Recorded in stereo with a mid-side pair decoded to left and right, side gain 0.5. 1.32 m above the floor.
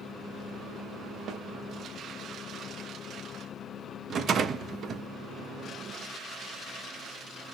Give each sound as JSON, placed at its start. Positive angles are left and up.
{"t": 1.3, "sound": "a snare drum", "azimuth_deg": -65, "distance_m": 0.7}
{"t": 4.1, "sound": "a rattle", "azimuth_deg": -50, "distance_m": 0.6}